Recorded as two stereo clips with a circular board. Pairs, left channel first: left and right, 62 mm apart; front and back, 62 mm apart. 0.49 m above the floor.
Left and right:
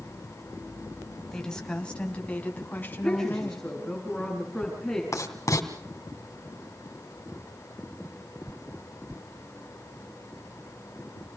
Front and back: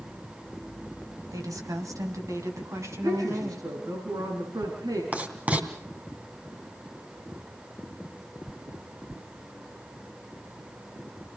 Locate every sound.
1.3 s a woman speaking: 170° left, 3 m; by 3.7 s 145° left, 5 m
2.9 s a woman speaking: 175° left, 6.5 m
5.1 s writing: 115° left, 3 m